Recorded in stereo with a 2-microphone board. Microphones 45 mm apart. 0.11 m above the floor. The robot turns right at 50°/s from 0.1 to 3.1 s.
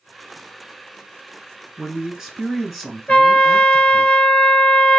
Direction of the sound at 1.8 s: 15° right (ahead or behind).